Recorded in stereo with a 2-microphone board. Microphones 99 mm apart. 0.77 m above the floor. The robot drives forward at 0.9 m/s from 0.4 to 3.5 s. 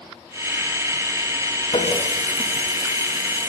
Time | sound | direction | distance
1.7 | a running tap | 85° left | 5 m